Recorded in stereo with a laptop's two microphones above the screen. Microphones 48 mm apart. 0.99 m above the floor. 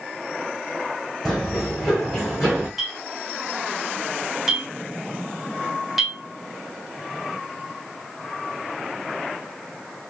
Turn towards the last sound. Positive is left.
turn(degrees=-5)  # may be behind; listen again after turning